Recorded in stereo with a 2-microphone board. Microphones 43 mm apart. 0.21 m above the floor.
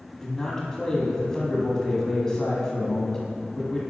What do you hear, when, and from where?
0.2 s a man speaking: 15° left (ahead or behind), 1.3 m